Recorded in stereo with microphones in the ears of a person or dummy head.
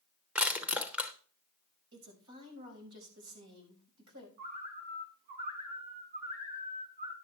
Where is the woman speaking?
70° right (ahead or behind), 5.5 m.